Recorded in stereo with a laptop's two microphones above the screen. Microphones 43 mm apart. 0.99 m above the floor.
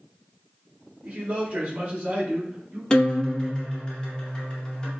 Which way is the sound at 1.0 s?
25° right (ahead or behind).